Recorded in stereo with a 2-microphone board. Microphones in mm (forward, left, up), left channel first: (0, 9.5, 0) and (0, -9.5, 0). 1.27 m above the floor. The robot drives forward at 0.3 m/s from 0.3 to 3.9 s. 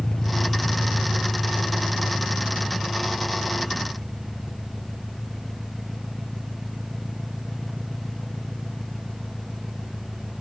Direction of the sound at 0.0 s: 40° left (ahead or behind).